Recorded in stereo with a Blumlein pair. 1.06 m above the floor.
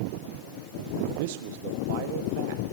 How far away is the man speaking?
About 1.3 m.